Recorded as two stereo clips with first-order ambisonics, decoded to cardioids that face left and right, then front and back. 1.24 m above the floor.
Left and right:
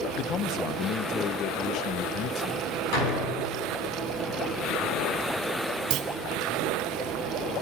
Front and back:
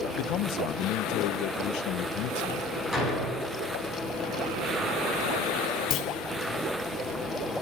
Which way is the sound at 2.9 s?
80° left.